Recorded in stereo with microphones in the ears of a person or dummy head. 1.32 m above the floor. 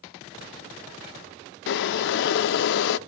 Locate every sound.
1.7 s boiling: 65° left (ahead or behind), 0.6 m